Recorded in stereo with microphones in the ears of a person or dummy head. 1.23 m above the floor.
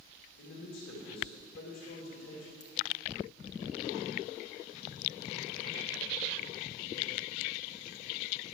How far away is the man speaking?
About 2.5 m.